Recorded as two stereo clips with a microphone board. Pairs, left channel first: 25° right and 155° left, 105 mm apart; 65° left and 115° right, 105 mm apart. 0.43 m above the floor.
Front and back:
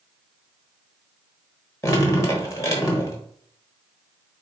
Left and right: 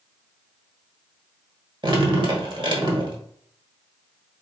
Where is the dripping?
80° right, 0.9 m.